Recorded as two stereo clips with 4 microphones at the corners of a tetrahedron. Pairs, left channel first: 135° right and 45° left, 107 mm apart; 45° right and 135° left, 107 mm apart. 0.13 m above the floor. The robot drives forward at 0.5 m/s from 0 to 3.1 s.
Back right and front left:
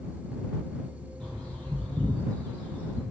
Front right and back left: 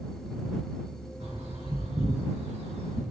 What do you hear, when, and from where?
1.2 s a bird: 140° left, 3 m; by 3.0 s 150° left, 3.5 m